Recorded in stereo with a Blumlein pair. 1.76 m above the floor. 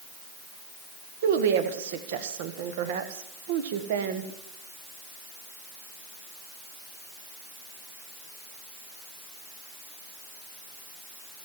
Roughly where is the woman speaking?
Ahead right.